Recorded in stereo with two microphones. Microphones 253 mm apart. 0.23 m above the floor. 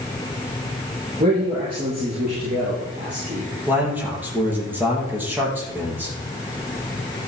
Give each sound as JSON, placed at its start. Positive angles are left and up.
{"t": 1.2, "sound": "a man speaking", "side_deg": -30, "distance_m": 5.5}
{"t": 3.7, "sound": "a man speaking", "side_deg": -5, "distance_m": 6.5}